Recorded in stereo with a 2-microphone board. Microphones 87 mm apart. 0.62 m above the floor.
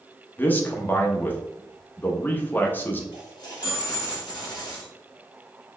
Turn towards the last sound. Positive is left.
turn(degrees=55)  # may be behind; listen again after turning